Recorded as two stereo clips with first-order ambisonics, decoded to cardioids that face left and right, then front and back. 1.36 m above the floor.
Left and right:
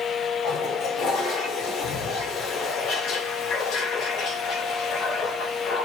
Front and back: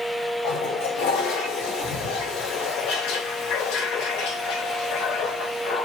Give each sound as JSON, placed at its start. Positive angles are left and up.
{"t": 0.4, "sound": "a toilet flushing", "azimuth_deg": 35, "distance_m": 3.0}